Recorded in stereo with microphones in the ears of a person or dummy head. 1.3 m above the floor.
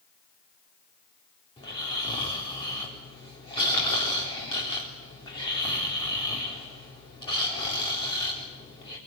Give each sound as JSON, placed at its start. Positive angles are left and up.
{"t": 1.6, "sound": "snoring", "side_deg": 25, "distance_m": 3.5}